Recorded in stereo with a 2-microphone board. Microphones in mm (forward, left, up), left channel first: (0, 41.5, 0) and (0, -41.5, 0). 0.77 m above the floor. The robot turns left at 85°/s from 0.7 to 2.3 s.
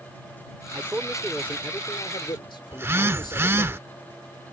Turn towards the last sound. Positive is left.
turn(degrees=-30)  # may be behind; listen again after turning